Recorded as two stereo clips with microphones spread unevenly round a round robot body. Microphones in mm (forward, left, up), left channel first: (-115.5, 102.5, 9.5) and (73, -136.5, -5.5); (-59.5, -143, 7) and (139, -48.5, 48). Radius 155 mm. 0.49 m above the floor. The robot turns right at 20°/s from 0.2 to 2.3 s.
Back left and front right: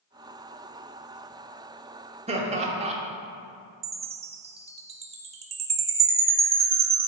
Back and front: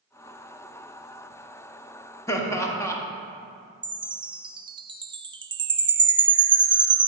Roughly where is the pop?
I don't hear a pop.